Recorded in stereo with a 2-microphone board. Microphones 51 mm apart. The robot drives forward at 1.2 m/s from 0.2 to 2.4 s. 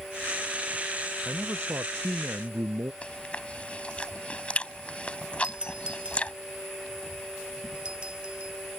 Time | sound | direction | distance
1.2 | a man speaking | 65° right (ahead or behind) | ?
3.0 | chewing | 25° left (ahead or behind) | ?
5.4 | a doorbell | 20° right (ahead or behind) | ?